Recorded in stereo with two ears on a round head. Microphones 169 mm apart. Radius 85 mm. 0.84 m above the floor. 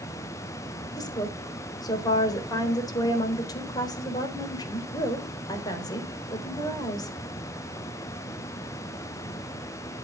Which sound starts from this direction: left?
A woman speaking, at 1.0 s.